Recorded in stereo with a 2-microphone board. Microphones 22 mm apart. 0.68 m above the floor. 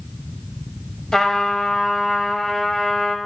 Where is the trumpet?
25° left (ahead or behind), 1.0 m.